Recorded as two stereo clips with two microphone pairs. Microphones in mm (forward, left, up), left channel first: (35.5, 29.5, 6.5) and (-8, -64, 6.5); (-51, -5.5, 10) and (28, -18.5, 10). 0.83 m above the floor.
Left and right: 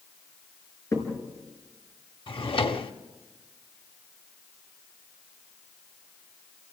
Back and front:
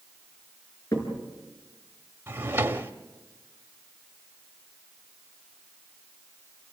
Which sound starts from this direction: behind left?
A crack, at 0.9 s.